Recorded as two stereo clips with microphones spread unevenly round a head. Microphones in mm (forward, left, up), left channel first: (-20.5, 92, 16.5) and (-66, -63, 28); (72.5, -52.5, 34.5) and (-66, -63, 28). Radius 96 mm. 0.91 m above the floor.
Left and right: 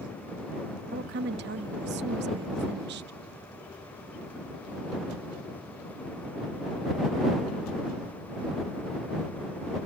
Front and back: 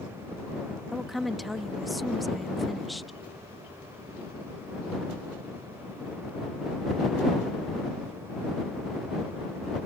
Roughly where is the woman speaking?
Right.